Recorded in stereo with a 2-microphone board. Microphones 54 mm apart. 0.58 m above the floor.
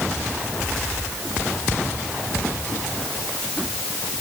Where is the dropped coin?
No dropped coin in this recording.